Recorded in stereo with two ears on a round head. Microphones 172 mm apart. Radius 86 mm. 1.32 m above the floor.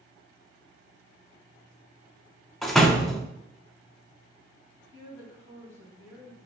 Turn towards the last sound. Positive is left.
turn(degrees=-15)  # may be behind; listen again after turning